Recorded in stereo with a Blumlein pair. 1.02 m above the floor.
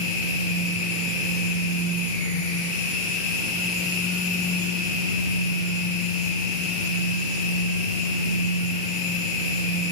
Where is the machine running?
45° left, 6.5 m.